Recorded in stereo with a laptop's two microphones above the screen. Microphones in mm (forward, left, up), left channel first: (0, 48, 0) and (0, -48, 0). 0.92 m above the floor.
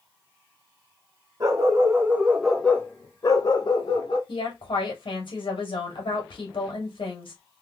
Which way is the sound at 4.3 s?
60° left (ahead or behind).